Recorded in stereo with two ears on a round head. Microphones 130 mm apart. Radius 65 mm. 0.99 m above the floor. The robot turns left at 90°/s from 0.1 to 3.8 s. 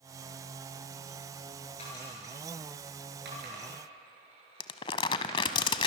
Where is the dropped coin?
45° left (ahead or behind), 9 m; by 5.6 s 45° right (ahead or behind), 9 m.